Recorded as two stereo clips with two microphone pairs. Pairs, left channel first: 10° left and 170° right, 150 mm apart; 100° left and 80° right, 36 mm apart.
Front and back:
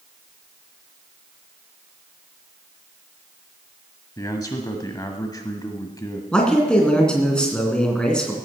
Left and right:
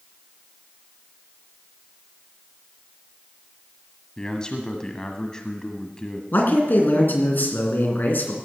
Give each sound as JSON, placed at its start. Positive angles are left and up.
{"t": 4.2, "sound": "a man speaking", "azimuth_deg": 50, "distance_m": 1.2}
{"t": 6.3, "sound": "a man speaking", "azimuth_deg": 95, "distance_m": 2.5}